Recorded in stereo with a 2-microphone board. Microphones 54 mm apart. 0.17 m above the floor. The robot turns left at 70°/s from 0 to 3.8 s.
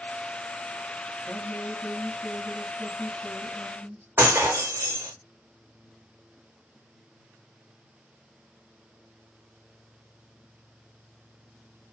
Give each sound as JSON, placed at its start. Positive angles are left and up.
{"t": 1.2, "sound": "a woman speaking", "azimuth_deg": 130, "distance_m": 4.0}
{"t": 4.2, "sound": "breaking glass", "side_deg": -40, "distance_m": 3.5}